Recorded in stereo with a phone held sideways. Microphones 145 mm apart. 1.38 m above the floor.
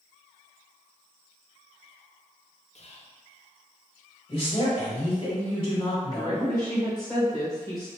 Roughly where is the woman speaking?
Left.